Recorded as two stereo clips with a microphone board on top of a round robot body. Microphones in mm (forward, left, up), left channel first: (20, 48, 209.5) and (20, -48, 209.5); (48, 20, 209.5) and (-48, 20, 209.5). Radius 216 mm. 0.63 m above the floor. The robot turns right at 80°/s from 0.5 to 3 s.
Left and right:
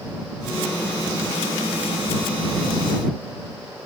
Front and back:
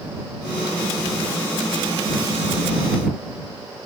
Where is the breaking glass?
I don't hear breaking glass.